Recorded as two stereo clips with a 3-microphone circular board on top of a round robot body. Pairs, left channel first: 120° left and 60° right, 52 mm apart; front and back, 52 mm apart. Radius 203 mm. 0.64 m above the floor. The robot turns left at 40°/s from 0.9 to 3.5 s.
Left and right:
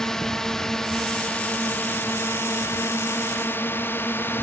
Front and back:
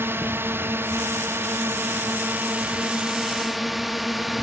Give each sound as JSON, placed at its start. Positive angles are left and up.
{"t": 0.0, "sound": "a drone", "azimuth_deg": -165}